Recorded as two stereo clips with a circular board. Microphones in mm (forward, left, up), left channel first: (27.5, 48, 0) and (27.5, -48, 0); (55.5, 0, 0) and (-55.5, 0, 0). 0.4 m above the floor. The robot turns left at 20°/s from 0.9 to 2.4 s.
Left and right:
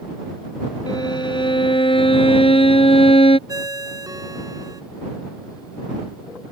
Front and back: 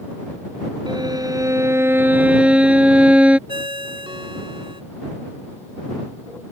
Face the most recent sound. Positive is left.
turn(degrees=-140)